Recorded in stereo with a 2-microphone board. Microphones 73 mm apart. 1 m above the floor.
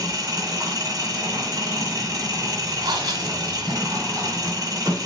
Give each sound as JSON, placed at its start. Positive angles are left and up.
{"t": 0.0, "sound": "an engine running", "side_deg": -55, "distance_m": 2.5}
{"t": 2.8, "sound": "breathing", "side_deg": -80, "distance_m": 1.8}